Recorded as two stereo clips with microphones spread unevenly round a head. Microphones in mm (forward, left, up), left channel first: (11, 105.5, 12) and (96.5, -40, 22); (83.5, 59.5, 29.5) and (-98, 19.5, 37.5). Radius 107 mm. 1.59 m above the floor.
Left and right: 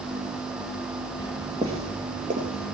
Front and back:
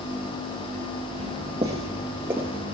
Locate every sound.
1.2 s footsteps: 120° right, 2.0 m; by 2.8 s 85° right, 2.5 m